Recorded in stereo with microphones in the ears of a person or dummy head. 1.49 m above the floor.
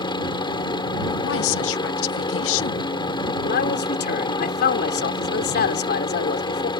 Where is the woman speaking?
70° left (ahead or behind).